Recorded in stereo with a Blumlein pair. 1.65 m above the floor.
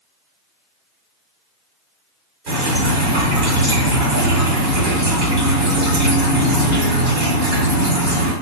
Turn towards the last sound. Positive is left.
turn(degrees=-40)